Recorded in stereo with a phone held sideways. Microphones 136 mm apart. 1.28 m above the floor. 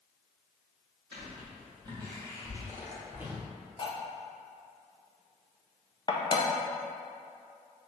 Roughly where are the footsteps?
Right.